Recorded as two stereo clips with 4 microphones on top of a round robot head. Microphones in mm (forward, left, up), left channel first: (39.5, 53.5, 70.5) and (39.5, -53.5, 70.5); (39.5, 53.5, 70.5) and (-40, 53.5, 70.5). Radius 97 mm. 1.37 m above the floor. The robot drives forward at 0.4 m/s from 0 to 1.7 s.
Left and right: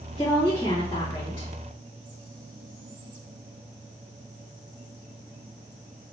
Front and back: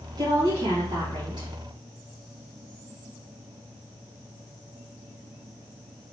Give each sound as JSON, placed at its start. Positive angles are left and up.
{"t": 0.2, "sound": "a woman speaking", "azimuth_deg": 155, "distance_m": 2.5}